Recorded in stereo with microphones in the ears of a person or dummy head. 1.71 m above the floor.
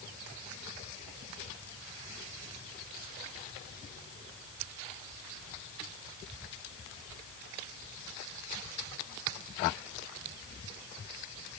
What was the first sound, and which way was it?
Only background noise.